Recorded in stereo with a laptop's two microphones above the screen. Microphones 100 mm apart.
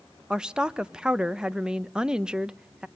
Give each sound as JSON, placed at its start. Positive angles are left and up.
{"t": 0.3, "sound": "a woman speaking", "side_deg": -10, "distance_m": 0.7}